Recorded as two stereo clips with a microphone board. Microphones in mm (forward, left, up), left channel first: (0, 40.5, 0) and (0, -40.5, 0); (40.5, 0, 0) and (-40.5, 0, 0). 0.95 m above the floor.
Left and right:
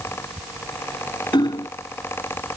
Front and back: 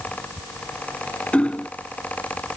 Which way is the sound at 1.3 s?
75° left.